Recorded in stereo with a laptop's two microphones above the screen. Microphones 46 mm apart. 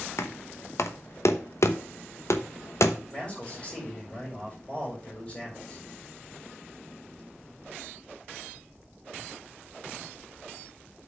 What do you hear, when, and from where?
0.2 s knocking: 75° left (ahead or behind), 0.9 m
3.1 s a man speaking: 20° left (ahead or behind), 5 m